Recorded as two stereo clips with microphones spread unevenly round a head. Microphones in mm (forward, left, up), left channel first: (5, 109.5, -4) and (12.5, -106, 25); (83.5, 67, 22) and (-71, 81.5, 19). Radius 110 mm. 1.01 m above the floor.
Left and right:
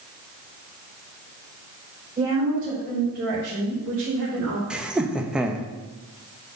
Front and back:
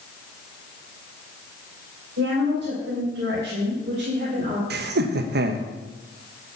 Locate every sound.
2.2 s a woman speaking: 155° right, 4 m; by 4.6 s 115° right, 3.5 m
4.7 s laughter: 175° right, 0.9 m